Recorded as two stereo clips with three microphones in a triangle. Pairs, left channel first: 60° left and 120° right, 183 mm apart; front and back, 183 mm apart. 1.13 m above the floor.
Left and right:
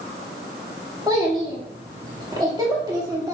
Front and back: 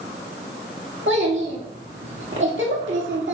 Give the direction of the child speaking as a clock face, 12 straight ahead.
6 o'clock.